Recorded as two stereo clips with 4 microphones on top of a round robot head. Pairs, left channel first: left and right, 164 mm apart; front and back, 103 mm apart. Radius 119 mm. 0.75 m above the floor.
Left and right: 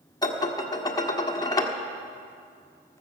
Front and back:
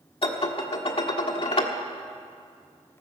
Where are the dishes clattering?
25° left, 1.5 m.